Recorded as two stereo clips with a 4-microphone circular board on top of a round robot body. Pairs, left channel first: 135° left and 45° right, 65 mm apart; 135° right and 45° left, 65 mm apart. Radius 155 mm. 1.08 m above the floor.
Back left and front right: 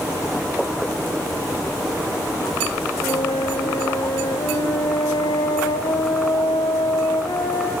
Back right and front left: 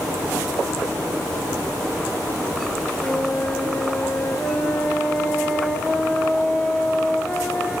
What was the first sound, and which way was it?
A flute, 140° left.